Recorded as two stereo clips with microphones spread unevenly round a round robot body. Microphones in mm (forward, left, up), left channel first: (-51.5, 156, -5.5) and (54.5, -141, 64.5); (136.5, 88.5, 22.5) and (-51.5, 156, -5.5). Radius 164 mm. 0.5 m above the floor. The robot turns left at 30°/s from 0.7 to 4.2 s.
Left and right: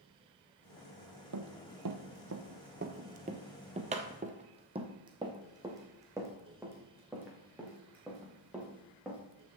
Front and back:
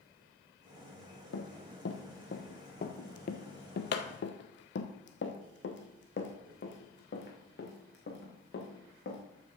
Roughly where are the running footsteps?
Ahead right.